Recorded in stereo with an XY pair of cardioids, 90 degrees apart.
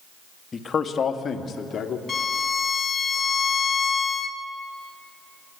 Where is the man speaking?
40° left, 1.7 m; by 2.0 s 60° left, 2.5 m.